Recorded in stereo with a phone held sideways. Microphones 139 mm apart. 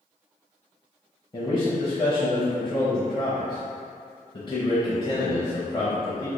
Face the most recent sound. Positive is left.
turn(degrees=35)  # may be behind; listen again after turning